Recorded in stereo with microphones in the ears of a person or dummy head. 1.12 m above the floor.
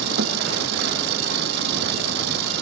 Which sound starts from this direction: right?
An engine running, at 0.0 s.